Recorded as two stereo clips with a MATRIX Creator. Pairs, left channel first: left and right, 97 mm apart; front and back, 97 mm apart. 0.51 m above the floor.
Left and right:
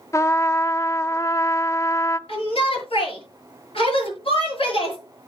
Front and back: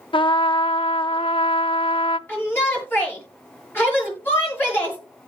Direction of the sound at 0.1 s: 30° left.